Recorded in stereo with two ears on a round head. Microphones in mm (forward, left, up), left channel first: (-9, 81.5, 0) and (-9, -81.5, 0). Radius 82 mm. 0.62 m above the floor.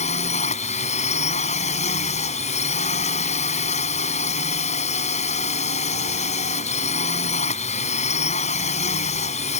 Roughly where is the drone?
Left.